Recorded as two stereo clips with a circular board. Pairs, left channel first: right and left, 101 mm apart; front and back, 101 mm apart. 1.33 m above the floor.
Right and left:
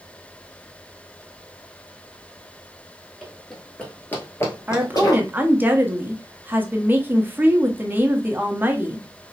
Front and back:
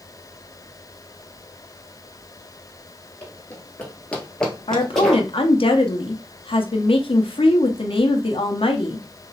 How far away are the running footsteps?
About 1.3 m.